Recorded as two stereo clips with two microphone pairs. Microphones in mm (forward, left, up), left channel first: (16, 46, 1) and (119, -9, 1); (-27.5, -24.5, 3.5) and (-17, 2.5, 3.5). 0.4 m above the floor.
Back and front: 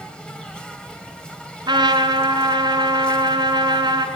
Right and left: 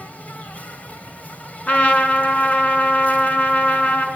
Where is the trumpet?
80° right, 5 m.